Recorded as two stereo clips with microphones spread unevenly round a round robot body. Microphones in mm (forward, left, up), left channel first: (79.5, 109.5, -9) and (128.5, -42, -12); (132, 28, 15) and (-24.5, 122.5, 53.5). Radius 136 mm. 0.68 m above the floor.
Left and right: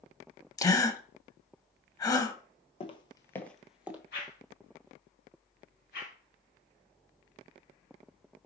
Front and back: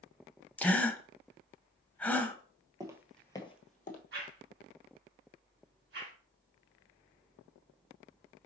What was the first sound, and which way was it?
A gasp, 65° left.